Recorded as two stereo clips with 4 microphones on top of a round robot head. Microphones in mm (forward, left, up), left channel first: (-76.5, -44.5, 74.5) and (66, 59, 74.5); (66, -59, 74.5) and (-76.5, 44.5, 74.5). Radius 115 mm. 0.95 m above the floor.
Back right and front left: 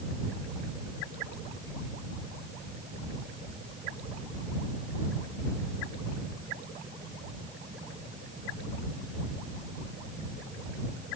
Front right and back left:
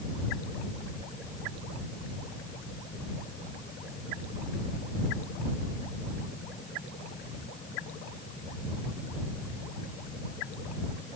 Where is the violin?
I don't hear a violin.